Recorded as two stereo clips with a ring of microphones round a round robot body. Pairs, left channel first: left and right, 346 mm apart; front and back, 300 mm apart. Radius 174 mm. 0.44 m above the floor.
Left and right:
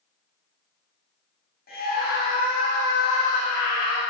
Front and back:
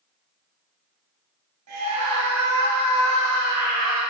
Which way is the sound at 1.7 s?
155° left.